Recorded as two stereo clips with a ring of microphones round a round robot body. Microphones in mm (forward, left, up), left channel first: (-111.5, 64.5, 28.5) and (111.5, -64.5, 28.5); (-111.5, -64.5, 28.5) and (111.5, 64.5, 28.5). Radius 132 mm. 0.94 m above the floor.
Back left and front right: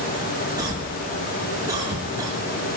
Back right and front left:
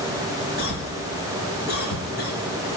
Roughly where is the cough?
Right.